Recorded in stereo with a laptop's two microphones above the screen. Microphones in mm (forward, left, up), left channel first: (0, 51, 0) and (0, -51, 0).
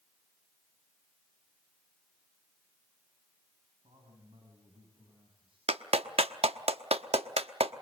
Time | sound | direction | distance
3.8 | a man speaking | 60° right (ahead or behind) | 8 m
5.7 | a clap | 80° right | 1.0 m